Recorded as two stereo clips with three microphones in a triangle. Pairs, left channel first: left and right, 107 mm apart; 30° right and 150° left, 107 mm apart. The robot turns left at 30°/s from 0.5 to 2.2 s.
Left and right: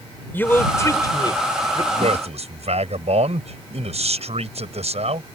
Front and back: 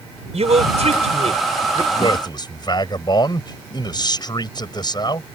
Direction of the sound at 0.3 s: 160° left.